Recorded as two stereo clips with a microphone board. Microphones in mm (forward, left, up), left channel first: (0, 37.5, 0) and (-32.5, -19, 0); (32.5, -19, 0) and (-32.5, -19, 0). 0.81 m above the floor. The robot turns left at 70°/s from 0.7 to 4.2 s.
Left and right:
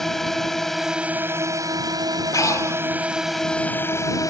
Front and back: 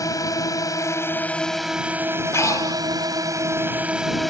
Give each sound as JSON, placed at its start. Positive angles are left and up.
{"t": 0.0, "sound": "a drone", "azimuth_deg": -25}
{"t": 2.3, "sound": "breathing", "azimuth_deg": 40}